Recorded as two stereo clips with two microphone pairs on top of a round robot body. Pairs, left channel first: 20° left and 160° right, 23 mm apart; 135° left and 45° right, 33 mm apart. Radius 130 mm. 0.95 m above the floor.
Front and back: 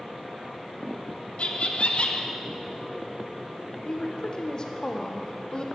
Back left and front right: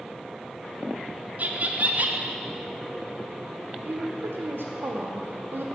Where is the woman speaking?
35° right, 0.5 m.